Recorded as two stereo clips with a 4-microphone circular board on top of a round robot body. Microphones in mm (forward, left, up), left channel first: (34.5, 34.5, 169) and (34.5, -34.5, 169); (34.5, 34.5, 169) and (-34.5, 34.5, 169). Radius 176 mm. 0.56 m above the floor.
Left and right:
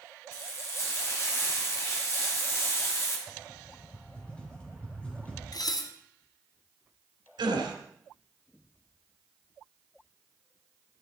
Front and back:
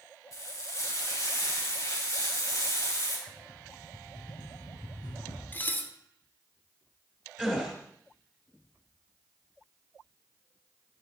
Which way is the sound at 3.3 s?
15° left.